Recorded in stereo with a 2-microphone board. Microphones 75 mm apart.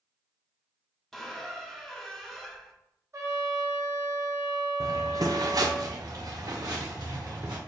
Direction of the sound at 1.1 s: 5° left (ahead or behind).